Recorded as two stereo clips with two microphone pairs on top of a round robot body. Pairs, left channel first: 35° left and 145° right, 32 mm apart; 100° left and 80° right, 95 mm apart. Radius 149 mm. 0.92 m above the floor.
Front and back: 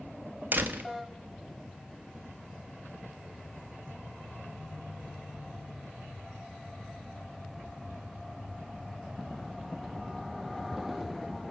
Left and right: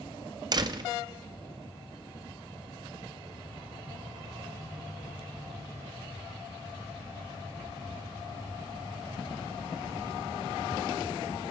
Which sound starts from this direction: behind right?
A door slam, at 0.5 s.